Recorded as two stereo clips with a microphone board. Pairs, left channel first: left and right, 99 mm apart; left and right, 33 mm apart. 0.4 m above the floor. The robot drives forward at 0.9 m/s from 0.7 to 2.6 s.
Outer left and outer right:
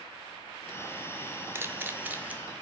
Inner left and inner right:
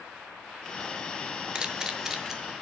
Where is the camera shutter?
25° right (ahead or behind), 1.0 m; by 2.4 s 15° right (ahead or behind), 1.5 m.